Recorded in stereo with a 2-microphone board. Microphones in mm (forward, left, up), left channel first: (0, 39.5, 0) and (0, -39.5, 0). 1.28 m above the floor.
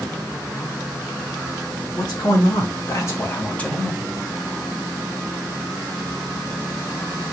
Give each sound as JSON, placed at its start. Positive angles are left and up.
{"t": 2.0, "sound": "a man speaking", "side_deg": 50, "distance_m": 3.0}